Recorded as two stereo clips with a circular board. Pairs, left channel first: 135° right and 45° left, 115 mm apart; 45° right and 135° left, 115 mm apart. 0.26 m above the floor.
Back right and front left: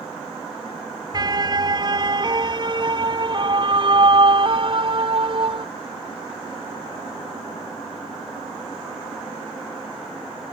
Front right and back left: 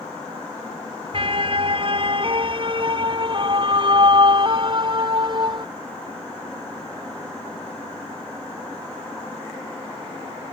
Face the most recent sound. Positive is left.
turn(degrees=85)